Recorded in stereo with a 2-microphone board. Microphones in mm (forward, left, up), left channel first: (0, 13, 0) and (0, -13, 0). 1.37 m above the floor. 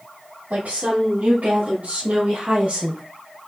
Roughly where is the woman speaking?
Right.